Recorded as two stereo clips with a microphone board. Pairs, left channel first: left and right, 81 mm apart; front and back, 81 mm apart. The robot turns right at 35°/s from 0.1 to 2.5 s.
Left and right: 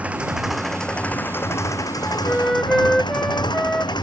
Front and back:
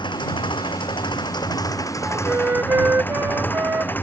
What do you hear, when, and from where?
0.0 s an engine running: 15° right; by 4.0 s 65° left
2.0 s a flute: 160° left; by 3.9 s 175° left